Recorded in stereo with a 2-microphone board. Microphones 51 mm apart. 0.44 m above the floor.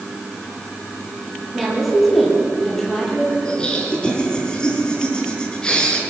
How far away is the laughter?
About 5 m.